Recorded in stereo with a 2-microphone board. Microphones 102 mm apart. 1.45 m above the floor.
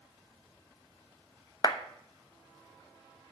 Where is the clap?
40° left (ahead or behind), 0.9 m.